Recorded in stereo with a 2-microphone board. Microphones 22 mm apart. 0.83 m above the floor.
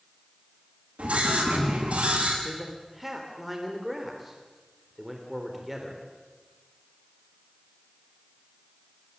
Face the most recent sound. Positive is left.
turn(degrees=-10)  # may be behind; listen again after turning